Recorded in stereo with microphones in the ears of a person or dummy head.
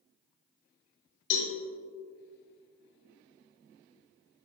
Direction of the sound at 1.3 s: 55° left (ahead or behind).